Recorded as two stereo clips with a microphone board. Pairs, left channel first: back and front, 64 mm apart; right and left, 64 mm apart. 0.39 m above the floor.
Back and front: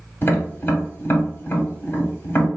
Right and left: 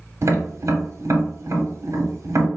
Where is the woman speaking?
I don't hear a woman speaking.